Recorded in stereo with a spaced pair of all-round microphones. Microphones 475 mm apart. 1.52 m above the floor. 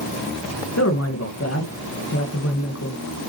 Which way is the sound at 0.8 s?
30° left (ahead or behind).